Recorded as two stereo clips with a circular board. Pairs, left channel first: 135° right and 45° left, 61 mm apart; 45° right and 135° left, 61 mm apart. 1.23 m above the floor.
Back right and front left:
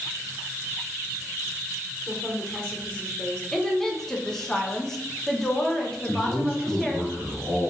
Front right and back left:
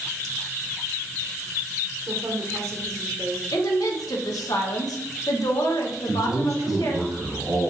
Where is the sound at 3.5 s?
50° right, 0.7 m.